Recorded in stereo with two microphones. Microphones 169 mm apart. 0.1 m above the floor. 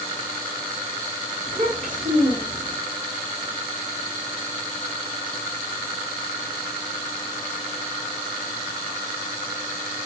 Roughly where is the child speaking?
Right.